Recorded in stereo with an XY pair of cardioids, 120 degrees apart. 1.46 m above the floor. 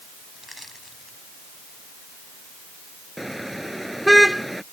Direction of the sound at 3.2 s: 5° right.